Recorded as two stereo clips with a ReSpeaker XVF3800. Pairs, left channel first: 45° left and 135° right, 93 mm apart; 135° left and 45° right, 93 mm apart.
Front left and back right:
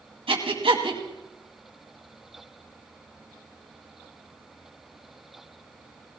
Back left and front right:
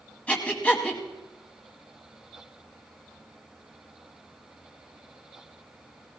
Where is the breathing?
150° right, 2 m.